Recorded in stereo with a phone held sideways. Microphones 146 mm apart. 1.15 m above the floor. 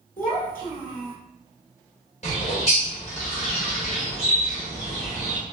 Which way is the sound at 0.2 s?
70° left (ahead or behind).